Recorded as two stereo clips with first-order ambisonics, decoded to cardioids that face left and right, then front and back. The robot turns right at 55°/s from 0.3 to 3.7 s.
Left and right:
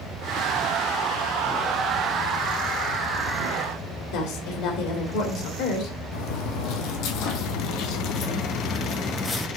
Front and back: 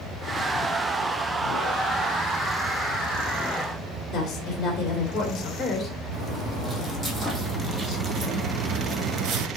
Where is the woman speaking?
70° left, 2 m.